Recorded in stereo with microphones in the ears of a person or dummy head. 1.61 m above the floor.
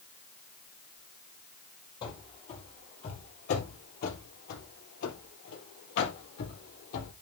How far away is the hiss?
No hiss in this recording.